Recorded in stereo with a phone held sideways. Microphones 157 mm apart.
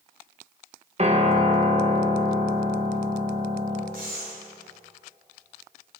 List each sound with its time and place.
1.0 s a piano: 40° right (ahead or behind), 1.3 m
3.9 s breathing: 65° right (ahead or behind), 2.5 m